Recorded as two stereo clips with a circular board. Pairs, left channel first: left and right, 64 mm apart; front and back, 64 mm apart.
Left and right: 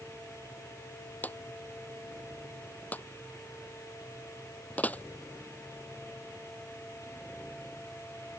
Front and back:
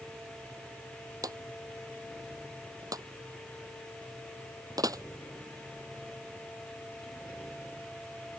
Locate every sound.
1.2 s a drawer: 155° left